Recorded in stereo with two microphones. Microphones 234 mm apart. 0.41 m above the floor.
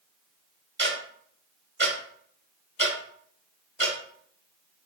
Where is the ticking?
50° right (ahead or behind), 1.1 m.